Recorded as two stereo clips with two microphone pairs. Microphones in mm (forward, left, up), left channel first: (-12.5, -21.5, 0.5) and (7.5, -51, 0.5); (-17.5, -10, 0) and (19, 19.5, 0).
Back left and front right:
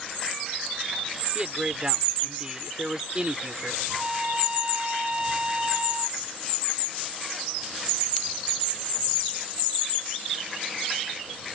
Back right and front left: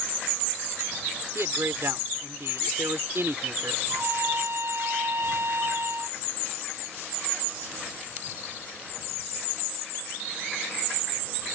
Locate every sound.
1.4 s a man speaking: 10° left
3.9 s a trumpet: 15° left